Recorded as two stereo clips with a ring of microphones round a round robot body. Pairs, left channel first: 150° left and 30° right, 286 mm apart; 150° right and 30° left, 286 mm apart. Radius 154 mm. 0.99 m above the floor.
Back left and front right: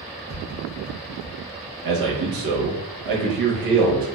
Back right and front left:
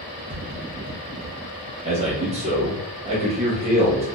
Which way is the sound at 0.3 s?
40° right.